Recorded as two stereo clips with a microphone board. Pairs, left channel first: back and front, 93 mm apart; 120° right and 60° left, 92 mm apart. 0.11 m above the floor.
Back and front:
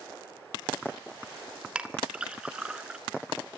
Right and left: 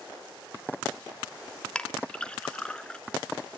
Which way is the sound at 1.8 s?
60° right.